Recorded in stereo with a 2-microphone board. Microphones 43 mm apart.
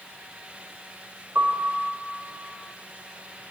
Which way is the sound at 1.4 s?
60° right (ahead or behind).